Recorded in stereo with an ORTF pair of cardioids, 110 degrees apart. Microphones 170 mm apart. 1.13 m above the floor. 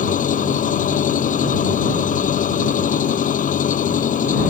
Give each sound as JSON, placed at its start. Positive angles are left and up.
{"t": 0.0, "sound": "an engine running", "azimuth_deg": 50}